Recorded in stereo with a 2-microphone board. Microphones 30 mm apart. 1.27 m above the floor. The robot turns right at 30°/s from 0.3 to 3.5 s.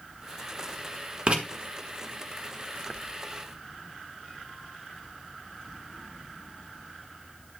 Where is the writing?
40° right (ahead or behind), 1.3 m; by 1.4 s 35° right (ahead or behind), 1.3 m.